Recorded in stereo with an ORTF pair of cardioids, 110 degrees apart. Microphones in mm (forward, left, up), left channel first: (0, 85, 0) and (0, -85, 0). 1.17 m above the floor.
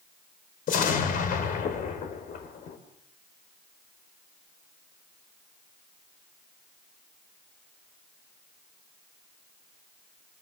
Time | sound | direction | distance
0.7 | an explosion | 60° left | 4 m